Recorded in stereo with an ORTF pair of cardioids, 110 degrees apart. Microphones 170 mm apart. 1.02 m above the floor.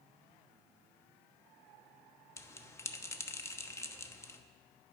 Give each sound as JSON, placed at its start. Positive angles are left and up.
{"t": 2.4, "sound": "a bell", "azimuth_deg": 15, "distance_m": 1.0}